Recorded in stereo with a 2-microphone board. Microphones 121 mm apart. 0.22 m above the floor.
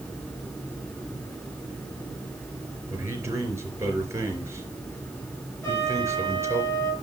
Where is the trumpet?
25° left (ahead or behind), 4 m.